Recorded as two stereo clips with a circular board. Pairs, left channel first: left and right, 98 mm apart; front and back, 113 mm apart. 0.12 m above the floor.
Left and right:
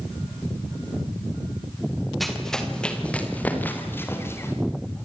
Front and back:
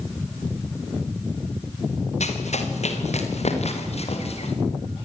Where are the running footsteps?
Straight ahead, 4.5 m; by 4.5 s 25° left, 5.5 m.